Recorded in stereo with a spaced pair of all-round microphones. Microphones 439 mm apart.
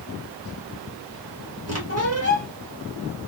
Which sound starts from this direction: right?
A squeak, at 1.7 s.